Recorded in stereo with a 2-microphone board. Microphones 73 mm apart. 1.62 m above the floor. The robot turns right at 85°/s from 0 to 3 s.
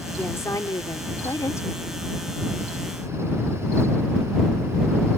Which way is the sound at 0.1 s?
15° left.